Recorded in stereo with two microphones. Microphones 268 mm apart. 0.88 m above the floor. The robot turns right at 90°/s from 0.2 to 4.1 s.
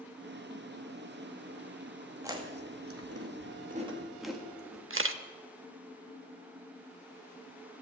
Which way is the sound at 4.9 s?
50° right (ahead or behind).